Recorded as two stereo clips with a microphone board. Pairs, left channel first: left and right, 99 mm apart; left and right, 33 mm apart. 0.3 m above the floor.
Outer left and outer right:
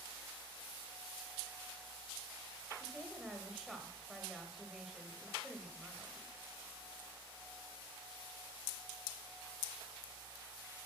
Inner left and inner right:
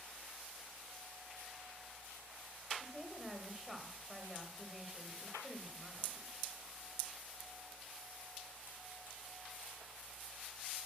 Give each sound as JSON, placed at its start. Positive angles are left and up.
{"t": 2.8, "sound": "a woman speaking", "side_deg": -5, "distance_m": 1.4}